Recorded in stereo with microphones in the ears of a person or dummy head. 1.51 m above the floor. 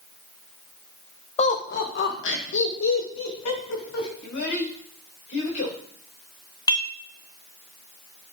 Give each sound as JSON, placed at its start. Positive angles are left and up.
{"t": 1.4, "sound": "laughter", "side_deg": 30, "distance_m": 1.3}
{"t": 4.2, "sound": "a child speaking", "side_deg": 55, "distance_m": 4.0}
{"t": 6.7, "sound": "dishes clattering", "side_deg": 25, "distance_m": 1.3}